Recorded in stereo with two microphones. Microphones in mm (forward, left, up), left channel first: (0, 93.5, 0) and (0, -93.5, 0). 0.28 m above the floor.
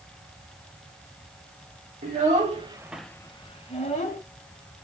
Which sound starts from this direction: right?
A child speaking, at 2.0 s.